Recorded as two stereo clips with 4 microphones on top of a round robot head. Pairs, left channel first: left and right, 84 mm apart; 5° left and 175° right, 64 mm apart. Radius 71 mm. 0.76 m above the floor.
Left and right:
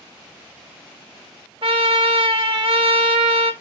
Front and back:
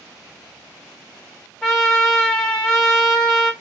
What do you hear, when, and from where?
1.6 s a trumpet: 80° right, 1.3 m